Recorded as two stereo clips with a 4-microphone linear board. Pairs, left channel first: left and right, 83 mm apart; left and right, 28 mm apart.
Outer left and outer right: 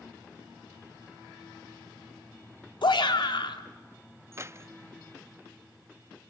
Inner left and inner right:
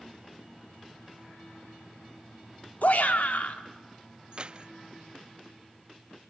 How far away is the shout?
About 1.9 m.